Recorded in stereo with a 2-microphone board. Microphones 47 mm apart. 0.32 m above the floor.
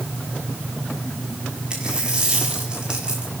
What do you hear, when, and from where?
1.7 s a dropped coin: 20° right (ahead or behind), 6.5 m